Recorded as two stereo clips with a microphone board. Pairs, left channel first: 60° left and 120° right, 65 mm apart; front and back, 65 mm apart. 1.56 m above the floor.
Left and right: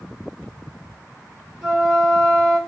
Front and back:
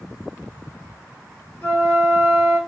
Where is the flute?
35° right, 1.6 m.